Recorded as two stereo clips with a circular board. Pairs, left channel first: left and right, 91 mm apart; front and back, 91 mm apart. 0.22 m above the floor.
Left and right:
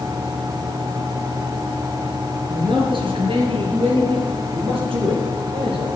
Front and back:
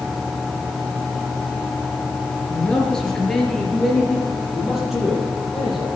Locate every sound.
2.5 s a man speaking: 80° right, 4.5 m; by 5.9 s 95° right, 9 m